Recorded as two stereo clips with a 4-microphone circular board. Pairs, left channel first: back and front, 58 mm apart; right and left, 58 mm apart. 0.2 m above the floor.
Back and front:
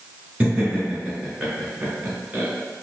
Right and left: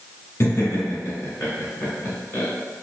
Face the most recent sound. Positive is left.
turn(degrees=-60)